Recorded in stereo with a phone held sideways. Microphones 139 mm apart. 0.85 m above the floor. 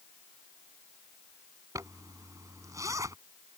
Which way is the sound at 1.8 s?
25° right (ahead or behind).